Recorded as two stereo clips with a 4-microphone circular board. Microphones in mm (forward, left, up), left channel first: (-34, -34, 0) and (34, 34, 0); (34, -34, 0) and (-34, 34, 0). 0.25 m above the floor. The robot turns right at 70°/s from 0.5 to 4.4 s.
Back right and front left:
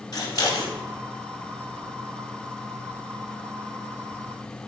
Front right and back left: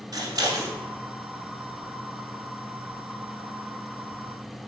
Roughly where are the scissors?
Behind.